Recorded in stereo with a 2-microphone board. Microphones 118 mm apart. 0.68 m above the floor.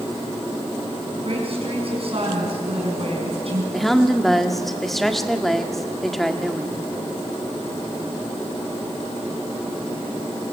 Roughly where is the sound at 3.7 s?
Centre.